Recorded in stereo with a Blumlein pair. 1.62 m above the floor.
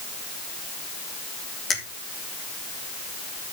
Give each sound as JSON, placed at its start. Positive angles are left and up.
{"t": 1.7, "sound": "a finger snap", "azimuth_deg": 20, "distance_m": 3.0}